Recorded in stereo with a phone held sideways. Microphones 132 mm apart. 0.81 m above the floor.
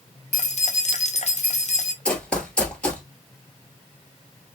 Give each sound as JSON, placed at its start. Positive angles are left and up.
{"t": 0.3, "sound": "keys jangling", "side_deg": 60, "distance_m": 0.6}
{"t": 2.0, "sound": "running footsteps", "side_deg": 5, "distance_m": 1.0}